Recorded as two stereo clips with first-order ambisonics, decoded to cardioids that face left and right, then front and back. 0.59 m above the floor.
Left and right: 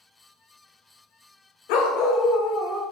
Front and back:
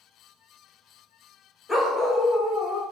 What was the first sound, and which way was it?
A dog barking, 80° left.